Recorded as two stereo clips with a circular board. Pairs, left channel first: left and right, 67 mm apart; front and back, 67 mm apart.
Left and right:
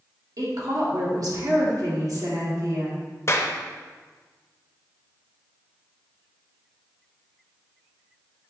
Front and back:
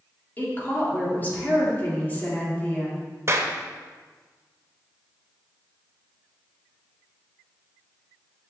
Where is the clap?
135° left, 0.8 m.